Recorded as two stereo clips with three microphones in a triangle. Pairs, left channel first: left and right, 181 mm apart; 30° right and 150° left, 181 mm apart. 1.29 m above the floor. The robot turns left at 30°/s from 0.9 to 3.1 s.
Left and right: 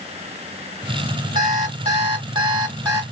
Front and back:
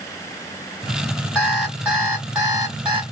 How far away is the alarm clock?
About 1.2 m.